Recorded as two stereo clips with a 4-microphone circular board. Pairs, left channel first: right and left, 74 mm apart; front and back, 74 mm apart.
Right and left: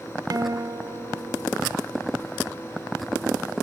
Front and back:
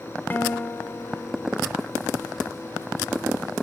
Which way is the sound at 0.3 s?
60° left.